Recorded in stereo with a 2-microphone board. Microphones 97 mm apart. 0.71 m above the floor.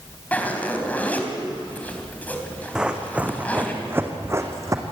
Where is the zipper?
15° left (ahead or behind), 3 m.